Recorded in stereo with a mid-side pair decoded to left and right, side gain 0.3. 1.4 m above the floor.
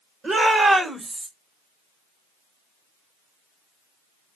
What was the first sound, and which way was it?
A shout, 65° right.